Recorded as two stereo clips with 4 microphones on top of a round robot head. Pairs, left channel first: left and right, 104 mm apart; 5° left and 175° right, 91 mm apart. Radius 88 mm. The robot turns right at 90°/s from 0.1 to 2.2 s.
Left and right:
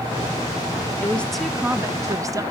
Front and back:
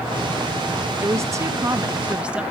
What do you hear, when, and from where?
1.0 s a woman speaking: 145° left, 0.8 m; by 2.4 s 110° right, 0.8 m